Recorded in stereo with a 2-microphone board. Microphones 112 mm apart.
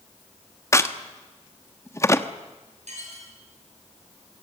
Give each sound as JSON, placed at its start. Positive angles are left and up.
{"t": 0.7, "sound": "a crack", "side_deg": 25, "distance_m": 1.1}
{"t": 2.9, "sound": "dishes clattering", "side_deg": -70, "distance_m": 7.0}